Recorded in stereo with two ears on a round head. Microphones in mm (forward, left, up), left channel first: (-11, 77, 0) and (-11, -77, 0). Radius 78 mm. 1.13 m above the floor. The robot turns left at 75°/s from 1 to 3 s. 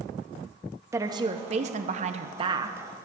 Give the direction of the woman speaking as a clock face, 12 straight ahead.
1 o'clock.